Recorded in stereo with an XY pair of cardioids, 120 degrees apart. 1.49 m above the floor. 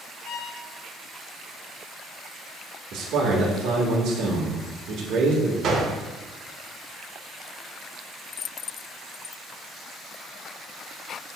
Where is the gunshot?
55° right, 1.3 m.